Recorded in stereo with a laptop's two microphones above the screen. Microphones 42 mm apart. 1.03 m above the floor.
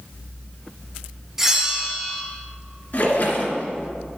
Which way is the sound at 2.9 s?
55° left (ahead or behind).